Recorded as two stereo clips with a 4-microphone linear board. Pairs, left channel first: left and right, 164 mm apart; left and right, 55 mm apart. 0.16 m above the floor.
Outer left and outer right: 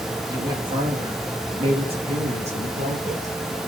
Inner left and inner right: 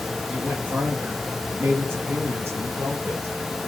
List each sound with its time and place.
0.3 s a woman speaking: 25° right (ahead or behind), 3 m; by 3.3 s 45° right (ahead or behind), 4.5 m